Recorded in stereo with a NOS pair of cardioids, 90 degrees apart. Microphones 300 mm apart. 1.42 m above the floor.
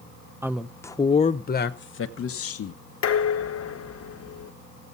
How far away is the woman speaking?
About 0.8 m.